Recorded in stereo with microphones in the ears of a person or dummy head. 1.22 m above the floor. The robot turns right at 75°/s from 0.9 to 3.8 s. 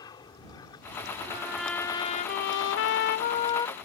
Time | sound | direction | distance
0.0 | an aircraft | 20° left (ahead or behind) | ?
1.3 | a trumpet | 30° right | ?